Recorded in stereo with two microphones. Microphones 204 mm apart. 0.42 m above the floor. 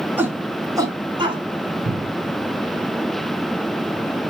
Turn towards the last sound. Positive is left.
turn(degrees=-75)  # may be behind; listen again after turning